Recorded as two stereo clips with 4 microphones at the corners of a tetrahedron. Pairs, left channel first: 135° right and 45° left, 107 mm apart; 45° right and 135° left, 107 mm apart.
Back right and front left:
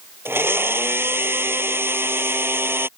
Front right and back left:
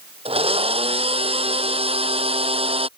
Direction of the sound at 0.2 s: 115° left.